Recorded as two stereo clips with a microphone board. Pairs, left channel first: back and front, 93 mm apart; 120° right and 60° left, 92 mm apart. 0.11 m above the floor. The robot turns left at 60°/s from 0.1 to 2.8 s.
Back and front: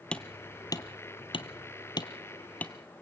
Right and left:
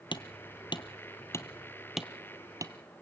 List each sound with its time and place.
0.1 s hammering: 100° right, 1.2 m; by 2.7 s 100° left, 1.2 m